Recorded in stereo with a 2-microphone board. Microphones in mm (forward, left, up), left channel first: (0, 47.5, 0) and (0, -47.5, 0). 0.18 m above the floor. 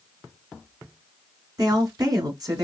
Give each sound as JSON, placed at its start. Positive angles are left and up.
{"t": 1.6, "sound": "a woman speaking", "side_deg": -45, "distance_m": 1.9}